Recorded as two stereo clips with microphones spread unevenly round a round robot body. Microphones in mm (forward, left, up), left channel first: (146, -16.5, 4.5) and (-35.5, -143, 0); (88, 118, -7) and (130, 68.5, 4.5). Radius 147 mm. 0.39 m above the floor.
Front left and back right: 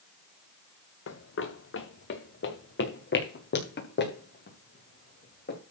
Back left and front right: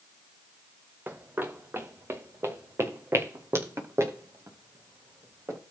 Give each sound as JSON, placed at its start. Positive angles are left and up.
{"t": 1.1, "sound": "running footsteps", "azimuth_deg": 10, "distance_m": 1.7}